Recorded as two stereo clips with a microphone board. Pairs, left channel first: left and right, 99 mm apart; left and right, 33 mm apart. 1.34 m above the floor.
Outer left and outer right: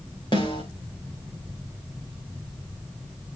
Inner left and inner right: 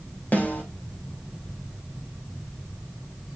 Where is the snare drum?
55° left (ahead or behind), 5.5 m.